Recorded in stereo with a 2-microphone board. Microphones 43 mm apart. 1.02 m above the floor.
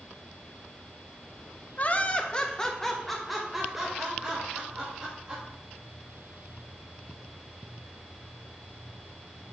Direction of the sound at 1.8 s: 35° left (ahead or behind).